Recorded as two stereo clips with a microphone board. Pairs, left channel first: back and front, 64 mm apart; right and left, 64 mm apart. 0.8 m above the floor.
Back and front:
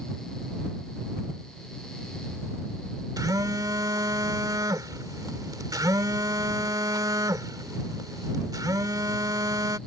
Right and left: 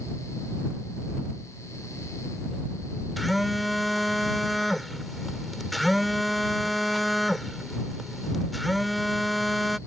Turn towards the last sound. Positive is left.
turn(degrees=0)